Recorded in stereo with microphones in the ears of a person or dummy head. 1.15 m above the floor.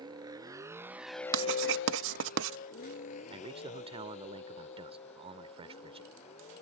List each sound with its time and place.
0.0 s a vehicle: 30° right (ahead or behind); by 6.6 s 45° left (ahead or behind)
1.3 s writing: 75° right (ahead or behind)
3.3 s a man speaking: 35° right (ahead or behind)